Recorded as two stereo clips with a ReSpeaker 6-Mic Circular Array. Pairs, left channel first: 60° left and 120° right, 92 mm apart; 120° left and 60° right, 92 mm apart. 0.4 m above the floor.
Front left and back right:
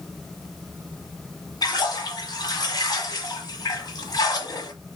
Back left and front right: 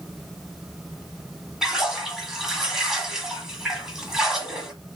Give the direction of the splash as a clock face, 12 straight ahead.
11 o'clock.